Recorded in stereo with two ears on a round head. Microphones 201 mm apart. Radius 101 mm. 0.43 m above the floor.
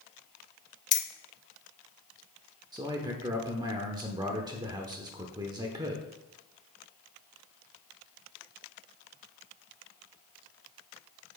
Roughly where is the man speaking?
Centre.